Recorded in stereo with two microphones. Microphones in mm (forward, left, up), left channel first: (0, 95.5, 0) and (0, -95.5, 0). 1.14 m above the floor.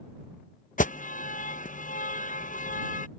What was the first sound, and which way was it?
An alarm, 45° left (ahead or behind).